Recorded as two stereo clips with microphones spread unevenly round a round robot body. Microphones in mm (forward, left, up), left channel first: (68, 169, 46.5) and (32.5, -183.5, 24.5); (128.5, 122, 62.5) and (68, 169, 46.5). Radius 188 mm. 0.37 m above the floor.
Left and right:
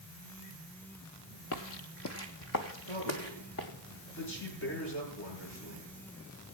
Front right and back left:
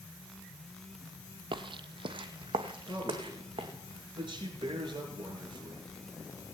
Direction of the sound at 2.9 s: 145° left.